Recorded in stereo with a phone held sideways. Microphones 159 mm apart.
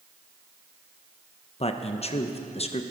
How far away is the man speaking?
About 0.9 m.